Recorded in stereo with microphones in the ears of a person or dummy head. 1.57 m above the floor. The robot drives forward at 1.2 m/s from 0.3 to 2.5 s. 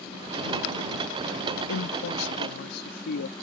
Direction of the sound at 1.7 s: 75° left (ahead or behind).